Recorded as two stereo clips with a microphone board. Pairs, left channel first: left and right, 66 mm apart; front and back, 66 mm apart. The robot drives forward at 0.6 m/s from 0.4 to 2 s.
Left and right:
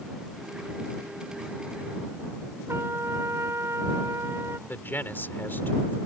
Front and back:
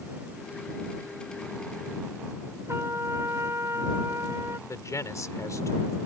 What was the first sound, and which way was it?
A trumpet, 135° right.